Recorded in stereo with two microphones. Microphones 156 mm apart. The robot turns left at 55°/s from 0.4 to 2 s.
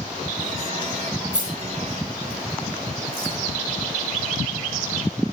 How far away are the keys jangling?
About 9 m.